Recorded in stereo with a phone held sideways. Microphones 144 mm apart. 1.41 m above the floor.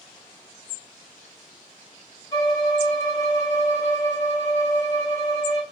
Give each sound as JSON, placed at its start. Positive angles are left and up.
{"t": 2.3, "sound": "a violin", "side_deg": 25, "distance_m": 1.3}